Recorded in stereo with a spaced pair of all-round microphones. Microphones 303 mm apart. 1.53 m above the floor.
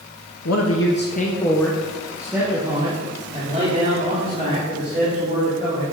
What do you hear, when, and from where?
0.5 s a man speaking: 60° left (ahead or behind), 0.7 m; by 5.8 s 35° right (ahead or behind), 3 m